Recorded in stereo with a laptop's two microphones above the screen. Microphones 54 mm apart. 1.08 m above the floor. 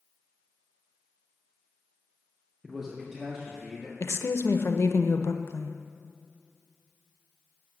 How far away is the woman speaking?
About 0.6 m.